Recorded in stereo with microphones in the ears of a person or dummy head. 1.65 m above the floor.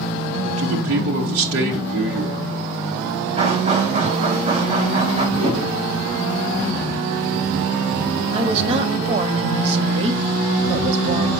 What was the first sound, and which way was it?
A man speaking, 80° right.